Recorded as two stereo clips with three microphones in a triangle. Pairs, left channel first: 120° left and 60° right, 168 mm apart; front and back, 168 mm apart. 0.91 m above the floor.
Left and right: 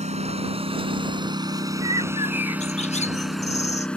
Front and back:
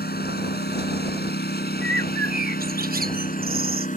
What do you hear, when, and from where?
0.0 s a lawn mower: 15° right; by 4.0 s 35° left
1.8 s a bird: 165° left